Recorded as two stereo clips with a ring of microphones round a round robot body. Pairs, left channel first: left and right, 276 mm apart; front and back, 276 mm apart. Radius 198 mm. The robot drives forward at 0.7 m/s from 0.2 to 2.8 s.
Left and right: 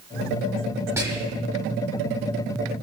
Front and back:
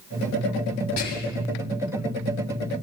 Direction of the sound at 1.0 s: 10° right.